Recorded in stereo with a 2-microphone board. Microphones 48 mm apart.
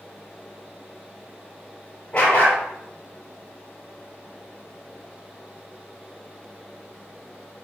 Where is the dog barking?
35° left (ahead or behind), 3 m.